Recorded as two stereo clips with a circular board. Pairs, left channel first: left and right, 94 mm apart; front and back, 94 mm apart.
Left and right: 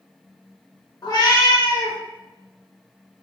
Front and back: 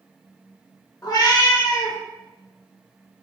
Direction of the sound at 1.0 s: 50° left.